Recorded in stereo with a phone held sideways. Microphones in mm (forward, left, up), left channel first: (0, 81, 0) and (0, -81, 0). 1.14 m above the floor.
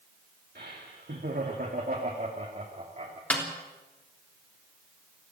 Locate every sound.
0.6 s laughter: 80° right, 2.5 m; by 3.2 s 45° right (ahead or behind), 3 m
3.3 s a snare drum: 10° left (ahead or behind), 3.5 m